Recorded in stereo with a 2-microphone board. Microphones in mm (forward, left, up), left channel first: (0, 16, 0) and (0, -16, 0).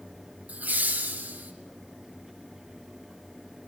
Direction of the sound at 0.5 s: 60° right (ahead or behind).